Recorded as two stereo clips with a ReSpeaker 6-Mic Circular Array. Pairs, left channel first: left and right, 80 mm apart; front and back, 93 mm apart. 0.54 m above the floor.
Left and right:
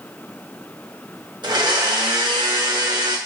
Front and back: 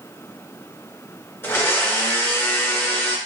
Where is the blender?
65° right, 0.6 m.